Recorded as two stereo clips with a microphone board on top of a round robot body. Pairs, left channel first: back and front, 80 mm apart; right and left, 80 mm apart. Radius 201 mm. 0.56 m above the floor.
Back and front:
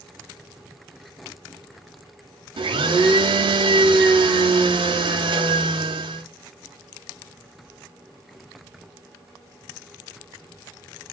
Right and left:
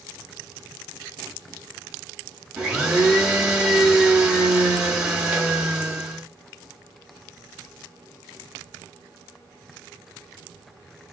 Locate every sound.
2.6 s a blender: 10° left, 0.7 m